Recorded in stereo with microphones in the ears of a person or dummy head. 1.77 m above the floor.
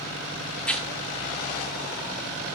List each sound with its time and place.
0.6 s tearing paper: 10° left (ahead or behind), 2.0 m